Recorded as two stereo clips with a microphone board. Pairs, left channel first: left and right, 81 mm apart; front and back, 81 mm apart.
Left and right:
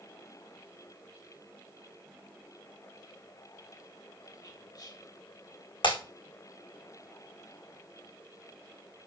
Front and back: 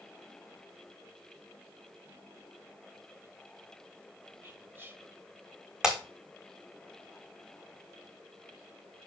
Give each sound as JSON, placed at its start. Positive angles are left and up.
{"t": 4.4, "sound": "whispering", "azimuth_deg": 120, "distance_m": 3.0}
{"t": 5.8, "sound": "breaking glass", "azimuth_deg": 95, "distance_m": 4.5}